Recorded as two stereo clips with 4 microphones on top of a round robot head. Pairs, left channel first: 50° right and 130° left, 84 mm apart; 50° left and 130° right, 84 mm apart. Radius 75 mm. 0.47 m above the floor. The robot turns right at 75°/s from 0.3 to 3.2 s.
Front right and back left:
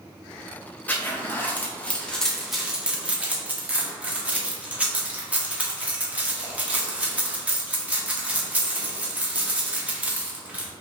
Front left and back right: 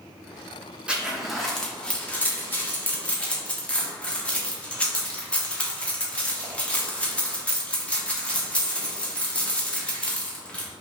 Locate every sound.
0.9 s a zipper: 80° right, 1.3 m; by 10.7 s 95° left, 1.3 m